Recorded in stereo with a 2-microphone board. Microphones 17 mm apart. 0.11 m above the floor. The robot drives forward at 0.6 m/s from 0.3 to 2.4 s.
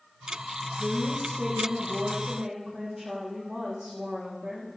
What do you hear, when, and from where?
0.8 s a woman speaking: 40° right (ahead or behind), 3.5 m; by 4.7 s 35° right (ahead or behind), 4.5 m